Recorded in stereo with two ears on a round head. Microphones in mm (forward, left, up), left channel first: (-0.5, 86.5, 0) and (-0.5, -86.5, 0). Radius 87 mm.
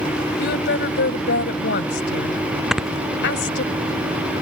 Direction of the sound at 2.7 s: Centre (ahead or behind).